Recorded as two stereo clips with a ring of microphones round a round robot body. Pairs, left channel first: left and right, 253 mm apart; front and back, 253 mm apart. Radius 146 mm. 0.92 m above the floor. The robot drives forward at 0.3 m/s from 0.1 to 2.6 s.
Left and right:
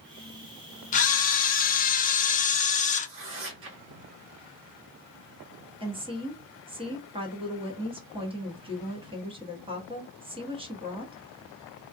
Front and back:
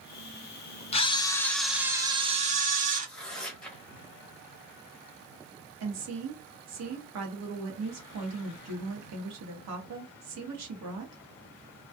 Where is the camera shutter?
50° left, 0.6 m; by 3.1 s 135° left, 0.6 m.